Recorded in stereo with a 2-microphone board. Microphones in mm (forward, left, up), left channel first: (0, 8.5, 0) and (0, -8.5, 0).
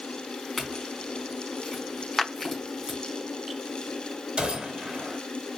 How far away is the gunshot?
About 2.5 m.